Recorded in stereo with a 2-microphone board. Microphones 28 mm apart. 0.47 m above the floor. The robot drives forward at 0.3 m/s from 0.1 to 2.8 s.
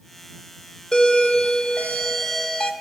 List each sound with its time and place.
0.9 s a doorbell: 30° left (ahead or behind), 1.3 m; by 2.7 s 25° left (ahead or behind), 1.6 m